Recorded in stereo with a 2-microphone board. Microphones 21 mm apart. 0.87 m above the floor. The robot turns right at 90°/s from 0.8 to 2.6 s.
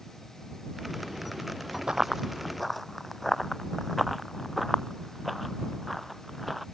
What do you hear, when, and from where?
1.9 s running footsteps: 50° right (ahead or behind); by 6.6 s 5° right (ahead or behind)